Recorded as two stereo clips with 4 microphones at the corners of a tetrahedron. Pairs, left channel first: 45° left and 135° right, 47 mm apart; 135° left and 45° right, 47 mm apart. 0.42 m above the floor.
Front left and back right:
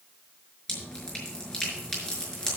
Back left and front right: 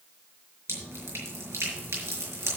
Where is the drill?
No drill in this recording.